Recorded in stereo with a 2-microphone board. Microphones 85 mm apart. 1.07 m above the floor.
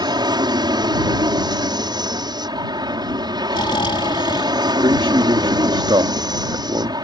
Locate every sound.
0.0 s an aircraft: 60° right (ahead or behind)
3.5 s snoring: 75° left (ahead or behind)
4.8 s a man speaking: 75° right (ahead or behind)